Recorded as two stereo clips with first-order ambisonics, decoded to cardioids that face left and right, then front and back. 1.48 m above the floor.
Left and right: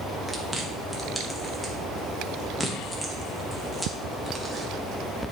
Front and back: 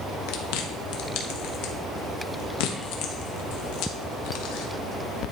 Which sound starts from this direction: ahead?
Chewing, at 0.3 s.